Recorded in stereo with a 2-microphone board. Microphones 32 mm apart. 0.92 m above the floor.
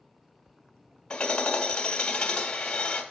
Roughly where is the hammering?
Left.